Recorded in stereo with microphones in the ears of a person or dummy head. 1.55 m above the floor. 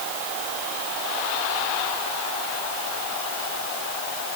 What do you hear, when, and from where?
Only background noise.